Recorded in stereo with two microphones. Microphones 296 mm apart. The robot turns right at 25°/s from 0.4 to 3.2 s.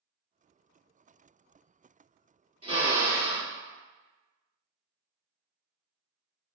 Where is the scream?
No scream in this recording.